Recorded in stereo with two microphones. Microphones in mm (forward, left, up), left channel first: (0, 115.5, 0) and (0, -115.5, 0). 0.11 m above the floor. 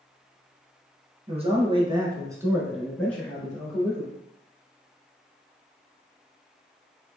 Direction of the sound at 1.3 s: 25° right (ahead or behind).